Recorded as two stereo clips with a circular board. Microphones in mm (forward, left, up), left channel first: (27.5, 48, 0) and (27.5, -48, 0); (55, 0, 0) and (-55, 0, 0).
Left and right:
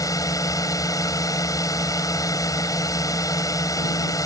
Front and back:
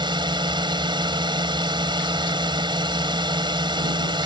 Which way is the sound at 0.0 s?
140° left.